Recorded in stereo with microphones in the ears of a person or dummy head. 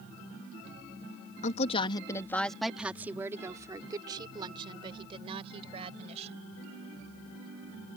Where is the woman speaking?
45° left (ahead or behind); by 6.5 s 35° right (ahead or behind).